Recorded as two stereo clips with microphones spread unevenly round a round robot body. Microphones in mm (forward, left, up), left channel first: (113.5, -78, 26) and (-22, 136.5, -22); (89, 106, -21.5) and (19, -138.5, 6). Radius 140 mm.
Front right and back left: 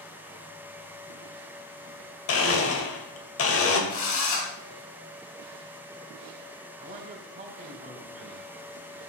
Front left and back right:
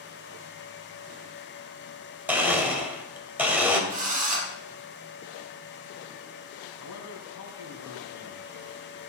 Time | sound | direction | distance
2.3 | a blender | 20° right | 2.5 m
3.9 | a drill | 45° right | 4.5 m
6.8 | a man speaking | 60° left | 3.5 m